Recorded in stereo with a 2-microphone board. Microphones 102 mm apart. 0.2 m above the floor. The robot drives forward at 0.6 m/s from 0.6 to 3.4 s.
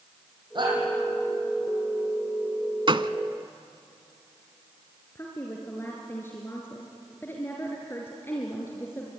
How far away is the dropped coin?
No dropped coin in this recording.